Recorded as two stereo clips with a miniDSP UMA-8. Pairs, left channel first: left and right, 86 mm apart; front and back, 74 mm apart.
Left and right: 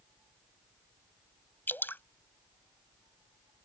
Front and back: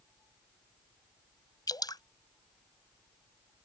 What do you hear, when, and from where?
1.7 s dripping: 25° left